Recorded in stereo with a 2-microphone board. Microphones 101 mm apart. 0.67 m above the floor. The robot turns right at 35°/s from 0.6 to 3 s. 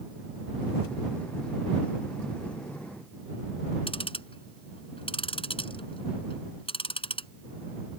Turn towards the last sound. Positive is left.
turn(degrees=65)  # may be behind; listen again after turning